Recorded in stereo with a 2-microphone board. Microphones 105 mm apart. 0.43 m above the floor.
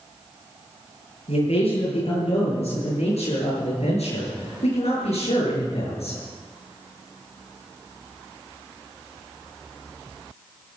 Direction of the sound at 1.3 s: 75° left (ahead or behind).